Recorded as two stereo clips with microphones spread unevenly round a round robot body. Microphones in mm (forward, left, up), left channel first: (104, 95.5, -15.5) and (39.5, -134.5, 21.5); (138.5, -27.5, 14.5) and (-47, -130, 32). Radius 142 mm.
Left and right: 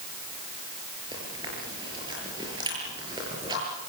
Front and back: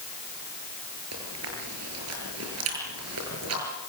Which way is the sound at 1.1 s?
Straight behind.